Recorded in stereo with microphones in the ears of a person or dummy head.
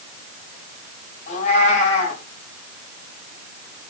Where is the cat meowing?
50° left (ahead or behind), 5 m.